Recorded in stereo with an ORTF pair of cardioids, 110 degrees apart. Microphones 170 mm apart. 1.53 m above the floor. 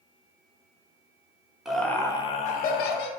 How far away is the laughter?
About 0.6 m.